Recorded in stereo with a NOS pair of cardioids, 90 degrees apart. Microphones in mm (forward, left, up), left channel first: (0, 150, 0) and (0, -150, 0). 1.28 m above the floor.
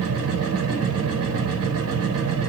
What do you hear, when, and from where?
0.0 s a machine running: 55° right, 1.1 m